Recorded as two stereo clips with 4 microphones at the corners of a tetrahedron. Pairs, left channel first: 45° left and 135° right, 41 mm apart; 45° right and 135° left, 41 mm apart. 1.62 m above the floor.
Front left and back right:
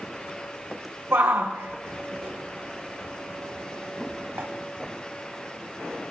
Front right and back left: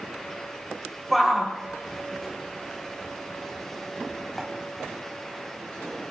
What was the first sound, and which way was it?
A shout, 135° right.